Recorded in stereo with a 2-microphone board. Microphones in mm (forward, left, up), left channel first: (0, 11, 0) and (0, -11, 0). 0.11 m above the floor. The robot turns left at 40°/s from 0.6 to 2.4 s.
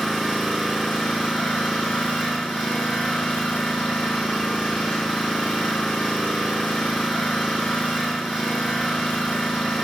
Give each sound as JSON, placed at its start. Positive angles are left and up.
{"t": 0.0, "sound": "an engine running", "azimuth_deg": 160, "distance_m": 2.5}